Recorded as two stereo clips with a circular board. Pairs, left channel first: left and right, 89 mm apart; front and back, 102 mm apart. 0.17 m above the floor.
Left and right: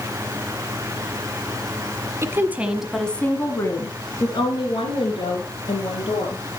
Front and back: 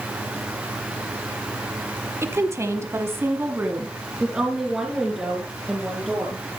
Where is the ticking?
No ticking in this recording.